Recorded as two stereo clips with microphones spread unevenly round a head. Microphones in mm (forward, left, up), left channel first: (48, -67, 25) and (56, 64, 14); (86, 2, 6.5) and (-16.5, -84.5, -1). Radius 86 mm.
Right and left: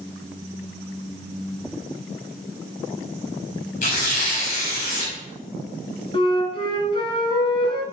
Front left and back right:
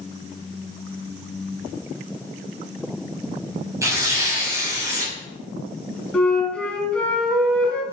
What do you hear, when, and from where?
3.8 s tearing paper: 70° right, 6.5 m
6.1 s a flute: 40° right, 3 m